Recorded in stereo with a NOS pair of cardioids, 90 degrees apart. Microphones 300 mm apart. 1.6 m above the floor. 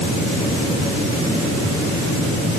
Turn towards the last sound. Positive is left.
No sound to turn to.